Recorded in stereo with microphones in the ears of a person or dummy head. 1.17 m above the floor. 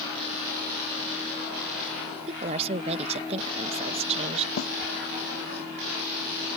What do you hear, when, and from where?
2.3 s a woman speaking: 30° right (ahead or behind)
4.6 s a snare drum: 60° left (ahead or behind)